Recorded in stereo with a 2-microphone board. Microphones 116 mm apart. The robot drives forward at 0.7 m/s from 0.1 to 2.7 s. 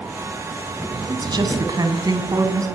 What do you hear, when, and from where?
1.1 s a woman speaking: 40° right (ahead or behind), 3 m; by 2.7 s 30° right (ahead or behind), 4 m